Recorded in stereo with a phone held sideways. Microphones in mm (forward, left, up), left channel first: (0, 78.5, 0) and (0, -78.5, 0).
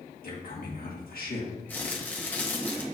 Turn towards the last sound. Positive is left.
turn(degrees=10)  # may be behind; listen again after turning